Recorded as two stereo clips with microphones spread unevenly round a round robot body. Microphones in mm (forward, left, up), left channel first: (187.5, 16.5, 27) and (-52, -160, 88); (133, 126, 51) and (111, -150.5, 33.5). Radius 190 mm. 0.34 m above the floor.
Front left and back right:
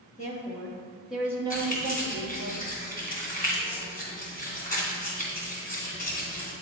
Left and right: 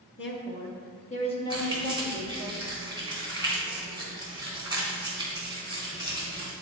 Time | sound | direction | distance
0.2 | a woman speaking | 70° left | 1.1 m
1.5 | keys jangling | 20° right | 2.5 m